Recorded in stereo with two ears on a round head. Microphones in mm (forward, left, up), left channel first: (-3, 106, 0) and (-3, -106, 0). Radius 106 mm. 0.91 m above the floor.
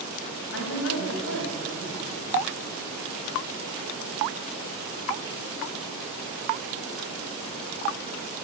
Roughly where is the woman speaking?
Left.